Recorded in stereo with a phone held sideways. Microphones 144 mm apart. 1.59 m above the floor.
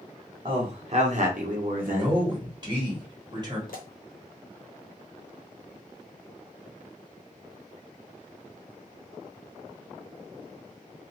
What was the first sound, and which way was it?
A man speaking, 35° right (ahead or behind).